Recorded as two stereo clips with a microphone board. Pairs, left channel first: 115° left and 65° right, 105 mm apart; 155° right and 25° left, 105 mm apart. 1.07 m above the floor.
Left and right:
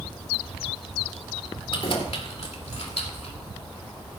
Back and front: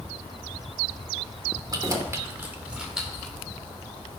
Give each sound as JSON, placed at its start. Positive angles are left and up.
{"t": 1.7, "sound": "keys jangling", "azimuth_deg": 75, "distance_m": 2.5}